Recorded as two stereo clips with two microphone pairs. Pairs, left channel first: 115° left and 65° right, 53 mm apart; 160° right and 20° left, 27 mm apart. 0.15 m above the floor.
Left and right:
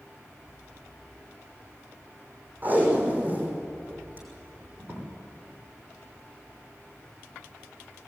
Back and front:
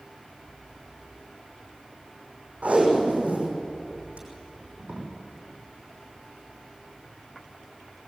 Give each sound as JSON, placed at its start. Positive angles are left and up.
{"t": 2.6, "sound": "tape being pulled", "azimuth_deg": -10, "distance_m": 5.5}